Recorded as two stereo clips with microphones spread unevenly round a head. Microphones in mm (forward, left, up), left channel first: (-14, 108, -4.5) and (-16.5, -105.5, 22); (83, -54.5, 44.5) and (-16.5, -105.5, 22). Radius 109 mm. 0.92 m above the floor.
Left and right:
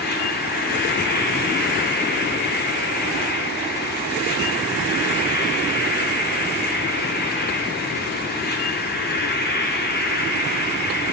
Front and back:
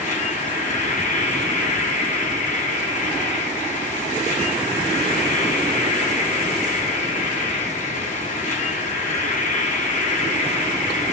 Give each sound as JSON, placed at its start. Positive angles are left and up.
{"t": 0.0, "sound": "an insect", "azimuth_deg": 40, "distance_m": 1.4}